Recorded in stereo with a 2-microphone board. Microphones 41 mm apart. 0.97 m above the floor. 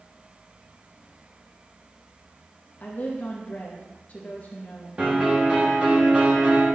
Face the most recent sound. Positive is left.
turn(degrees=-30)  # may be behind; listen again after turning